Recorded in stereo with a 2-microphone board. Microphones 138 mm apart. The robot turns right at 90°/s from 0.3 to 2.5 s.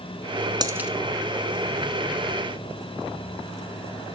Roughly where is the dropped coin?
Right.